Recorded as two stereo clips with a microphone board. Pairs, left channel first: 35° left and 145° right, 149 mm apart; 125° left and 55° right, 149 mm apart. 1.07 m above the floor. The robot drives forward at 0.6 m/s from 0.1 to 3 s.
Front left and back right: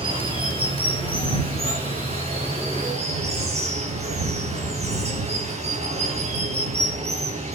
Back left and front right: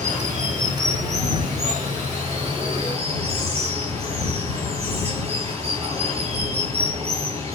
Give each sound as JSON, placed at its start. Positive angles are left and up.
{"t": 0.0, "sound": "running water", "azimuth_deg": -90, "distance_m": 8.5}